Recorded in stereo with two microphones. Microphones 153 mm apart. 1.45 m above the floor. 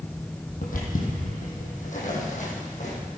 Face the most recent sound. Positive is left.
turn(degrees=50)  # may be behind; listen again after turning